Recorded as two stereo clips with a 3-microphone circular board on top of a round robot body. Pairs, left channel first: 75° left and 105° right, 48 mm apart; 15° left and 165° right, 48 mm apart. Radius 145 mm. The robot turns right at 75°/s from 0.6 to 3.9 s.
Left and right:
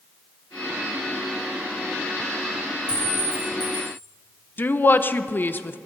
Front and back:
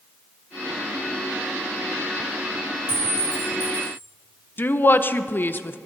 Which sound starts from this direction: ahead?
A clink, at 2.9 s.